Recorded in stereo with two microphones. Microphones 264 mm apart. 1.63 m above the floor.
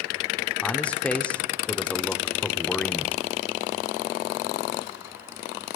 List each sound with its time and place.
0.6 s a man speaking: 5° left (ahead or behind), 0.6 m